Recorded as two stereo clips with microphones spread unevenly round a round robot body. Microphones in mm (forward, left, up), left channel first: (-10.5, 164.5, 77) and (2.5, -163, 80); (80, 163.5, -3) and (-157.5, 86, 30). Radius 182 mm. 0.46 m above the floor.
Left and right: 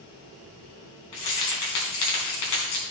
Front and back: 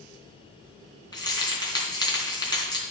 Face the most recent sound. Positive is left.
turn(degrees=95)